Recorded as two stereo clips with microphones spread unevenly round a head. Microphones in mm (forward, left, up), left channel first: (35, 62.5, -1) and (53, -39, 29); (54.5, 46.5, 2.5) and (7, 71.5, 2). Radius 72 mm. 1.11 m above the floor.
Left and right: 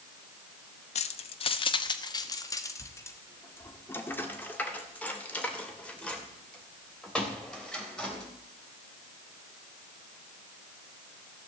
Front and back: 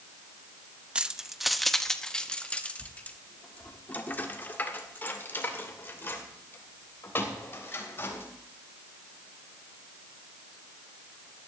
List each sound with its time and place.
0.9 s keys jangling: 80° left, 0.8 m; by 8.2 s 15° left, 4 m